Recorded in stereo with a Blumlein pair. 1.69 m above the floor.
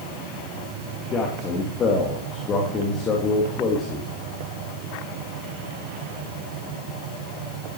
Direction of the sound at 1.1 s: 25° left.